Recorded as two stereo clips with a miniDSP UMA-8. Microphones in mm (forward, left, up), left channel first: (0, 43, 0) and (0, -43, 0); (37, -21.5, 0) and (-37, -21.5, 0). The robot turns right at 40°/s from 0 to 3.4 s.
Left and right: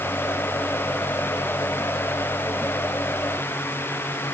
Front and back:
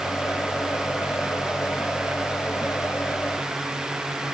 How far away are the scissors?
I don't hear scissors.